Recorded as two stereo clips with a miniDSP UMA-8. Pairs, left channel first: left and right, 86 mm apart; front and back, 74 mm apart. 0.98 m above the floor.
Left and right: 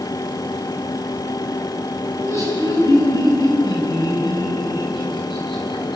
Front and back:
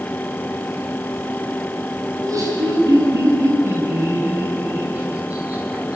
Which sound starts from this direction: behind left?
Laughter, at 2.1 s.